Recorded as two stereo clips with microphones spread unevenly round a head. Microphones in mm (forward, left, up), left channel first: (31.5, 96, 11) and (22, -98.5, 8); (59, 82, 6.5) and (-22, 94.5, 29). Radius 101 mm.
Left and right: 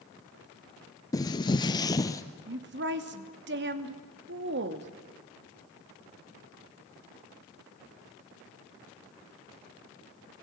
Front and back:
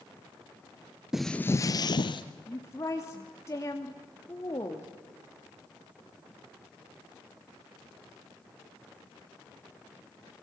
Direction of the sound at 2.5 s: 70° right.